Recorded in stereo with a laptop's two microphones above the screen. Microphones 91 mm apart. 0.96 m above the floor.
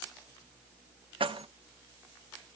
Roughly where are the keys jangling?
Right.